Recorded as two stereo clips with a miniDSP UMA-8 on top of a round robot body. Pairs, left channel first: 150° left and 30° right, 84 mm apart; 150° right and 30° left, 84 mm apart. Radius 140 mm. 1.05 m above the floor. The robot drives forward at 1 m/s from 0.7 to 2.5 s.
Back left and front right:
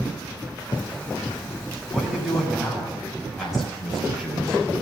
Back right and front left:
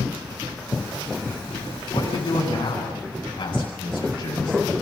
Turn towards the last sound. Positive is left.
turn(degrees=-115)